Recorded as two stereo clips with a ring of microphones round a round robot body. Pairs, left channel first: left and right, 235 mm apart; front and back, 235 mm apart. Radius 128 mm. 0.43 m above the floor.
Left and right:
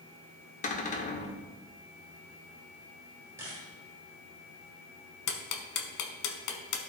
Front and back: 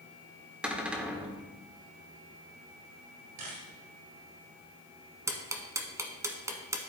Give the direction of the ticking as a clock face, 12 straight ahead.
9 o'clock.